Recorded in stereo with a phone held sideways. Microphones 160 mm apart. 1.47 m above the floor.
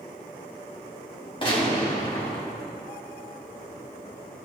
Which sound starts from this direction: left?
A gunshot, at 1.4 s.